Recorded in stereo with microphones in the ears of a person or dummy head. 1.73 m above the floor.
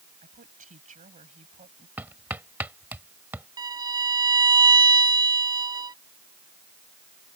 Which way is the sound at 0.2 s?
35° right (ahead or behind).